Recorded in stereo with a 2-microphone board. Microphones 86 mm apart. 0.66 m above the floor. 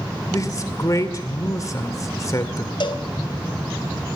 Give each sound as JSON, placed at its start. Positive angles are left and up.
{"t": 0.3, "sound": "a man speaking", "side_deg": 40, "distance_m": 2.0}
{"t": 2.8, "sound": "a cowbell", "side_deg": 60, "distance_m": 2.5}